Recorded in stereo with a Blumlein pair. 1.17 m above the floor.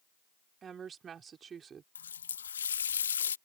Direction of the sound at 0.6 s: 20° right.